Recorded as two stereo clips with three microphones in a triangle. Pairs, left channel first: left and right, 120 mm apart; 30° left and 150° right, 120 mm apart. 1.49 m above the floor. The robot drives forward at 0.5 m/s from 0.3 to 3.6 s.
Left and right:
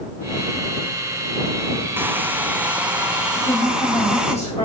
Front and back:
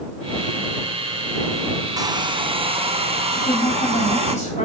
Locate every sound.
2.0 s a hair dryer: 145° right, 0.5 m; by 4.3 s 170° right, 1.1 m
3.4 s a woman speaking: 60° left, 3.5 m